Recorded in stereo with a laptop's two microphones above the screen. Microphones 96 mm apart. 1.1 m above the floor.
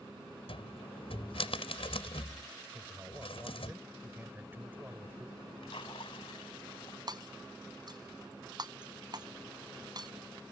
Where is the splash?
75° left (ahead or behind).